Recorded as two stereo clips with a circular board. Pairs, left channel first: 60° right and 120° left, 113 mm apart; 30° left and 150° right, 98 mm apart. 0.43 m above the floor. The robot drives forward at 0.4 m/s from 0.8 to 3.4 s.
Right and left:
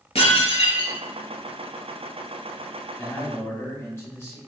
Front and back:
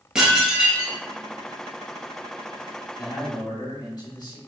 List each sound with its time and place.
0.1 s dishes clattering: 65° right, 1.4 m; by 1.0 s 70° right, 1.4 m
3.0 s a man speaking: straight ahead, 2 m